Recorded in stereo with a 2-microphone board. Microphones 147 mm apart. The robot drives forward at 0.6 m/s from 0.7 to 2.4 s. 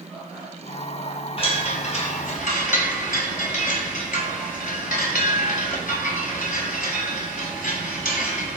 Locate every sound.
1.4 s a chime: 40° left (ahead or behind), 1.0 m; by 8.6 s 70° left (ahead or behind), 0.7 m